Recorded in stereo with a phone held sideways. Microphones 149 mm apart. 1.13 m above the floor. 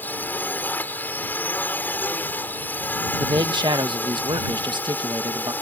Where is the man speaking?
30° right (ahead or behind).